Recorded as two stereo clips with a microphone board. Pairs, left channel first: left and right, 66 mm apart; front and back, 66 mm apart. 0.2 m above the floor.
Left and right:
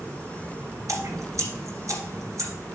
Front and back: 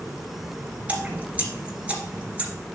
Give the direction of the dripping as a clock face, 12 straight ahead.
4 o'clock.